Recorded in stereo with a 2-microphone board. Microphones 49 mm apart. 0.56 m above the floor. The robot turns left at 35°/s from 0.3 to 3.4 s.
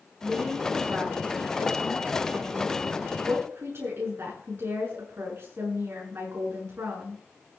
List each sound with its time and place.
0.2 s a woman speaking: 10° right, 7.5 m; by 7.2 s 115° right, 7.5 m